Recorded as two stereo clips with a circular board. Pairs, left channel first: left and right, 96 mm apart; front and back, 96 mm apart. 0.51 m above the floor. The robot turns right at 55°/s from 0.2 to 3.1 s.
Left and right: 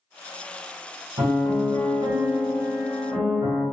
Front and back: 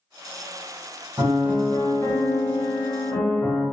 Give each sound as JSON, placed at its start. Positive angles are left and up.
{"t": 1.2, "sound": "a piano", "azimuth_deg": -105, "distance_m": 1.5}